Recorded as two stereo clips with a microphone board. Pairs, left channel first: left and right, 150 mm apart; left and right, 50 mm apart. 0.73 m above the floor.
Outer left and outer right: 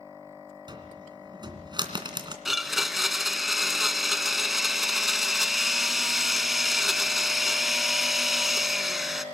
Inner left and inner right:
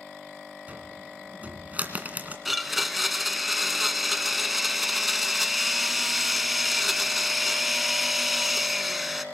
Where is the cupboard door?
30° right (ahead or behind), 2.5 m.